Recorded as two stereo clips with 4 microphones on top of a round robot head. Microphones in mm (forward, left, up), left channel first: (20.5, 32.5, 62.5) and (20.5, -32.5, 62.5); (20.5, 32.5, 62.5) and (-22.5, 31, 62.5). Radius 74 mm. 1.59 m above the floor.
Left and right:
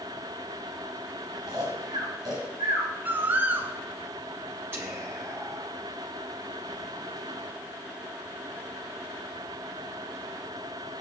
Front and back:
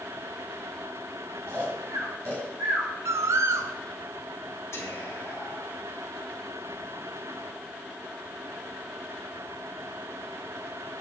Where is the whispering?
35° right, 3 m.